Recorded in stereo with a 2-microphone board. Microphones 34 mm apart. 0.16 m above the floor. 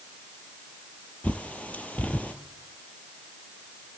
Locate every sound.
1.2 s a bird: 45° left (ahead or behind), 0.7 m